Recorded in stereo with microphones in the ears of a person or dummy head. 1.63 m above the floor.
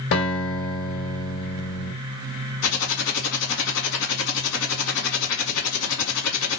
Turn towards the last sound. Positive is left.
turn(degrees=80)